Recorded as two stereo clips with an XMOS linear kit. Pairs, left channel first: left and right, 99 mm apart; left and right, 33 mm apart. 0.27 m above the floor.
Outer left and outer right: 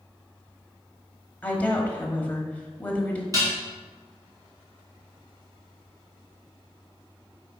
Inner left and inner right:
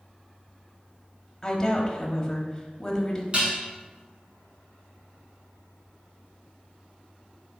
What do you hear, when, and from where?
1.4 s a woman speaking: 15° left (ahead or behind), 1.0 m
3.3 s dishes clattering: 35° right (ahead or behind), 2.0 m